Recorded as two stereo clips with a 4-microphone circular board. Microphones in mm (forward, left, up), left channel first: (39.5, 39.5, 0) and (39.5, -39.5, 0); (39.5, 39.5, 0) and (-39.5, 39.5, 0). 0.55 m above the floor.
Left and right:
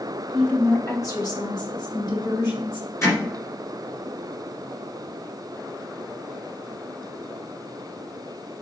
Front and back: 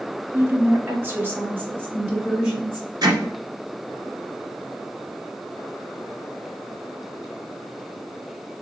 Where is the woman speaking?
165° left, 0.7 m; by 2.9 s 115° left, 3 m.